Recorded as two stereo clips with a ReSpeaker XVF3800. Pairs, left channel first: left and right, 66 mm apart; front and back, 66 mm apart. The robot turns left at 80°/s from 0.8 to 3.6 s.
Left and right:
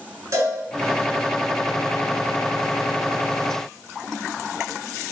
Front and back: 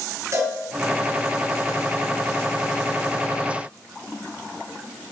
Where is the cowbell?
135° right, 6.5 m.